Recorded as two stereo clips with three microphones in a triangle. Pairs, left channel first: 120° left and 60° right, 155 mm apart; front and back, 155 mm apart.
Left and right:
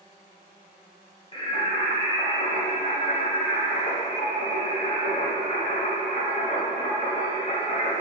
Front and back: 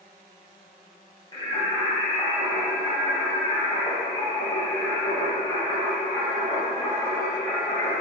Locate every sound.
1.3 s singing: 65° left, 1.1 m